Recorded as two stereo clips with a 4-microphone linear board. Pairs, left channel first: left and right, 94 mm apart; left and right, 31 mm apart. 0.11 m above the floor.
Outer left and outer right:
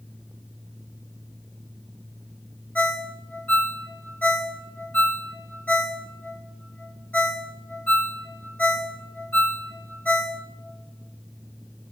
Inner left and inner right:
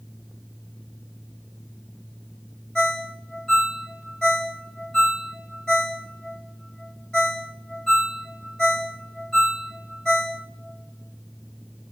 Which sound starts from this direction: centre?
A ringtone, at 2.8 s.